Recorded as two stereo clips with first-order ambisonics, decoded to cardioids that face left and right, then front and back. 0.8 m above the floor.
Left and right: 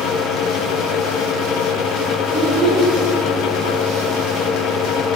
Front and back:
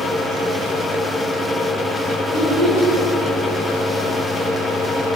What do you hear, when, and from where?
2.3 s a child speaking: 25° right, 2 m